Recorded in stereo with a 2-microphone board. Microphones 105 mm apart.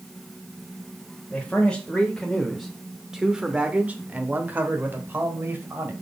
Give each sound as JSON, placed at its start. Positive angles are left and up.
{"t": 1.3, "sound": "a man speaking", "side_deg": 10, "distance_m": 1.3}